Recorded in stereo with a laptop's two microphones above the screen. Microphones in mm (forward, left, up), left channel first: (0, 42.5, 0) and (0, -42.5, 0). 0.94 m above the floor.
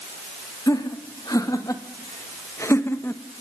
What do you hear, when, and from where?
0.7 s laughter: 45° left (ahead or behind), 2.5 m; by 3.2 s 25° left (ahead or behind), 0.9 m